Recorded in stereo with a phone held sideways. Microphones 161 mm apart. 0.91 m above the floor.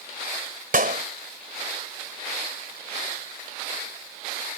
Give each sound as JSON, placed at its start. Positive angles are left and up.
{"t": 0.7, "sound": "a clap", "side_deg": -65}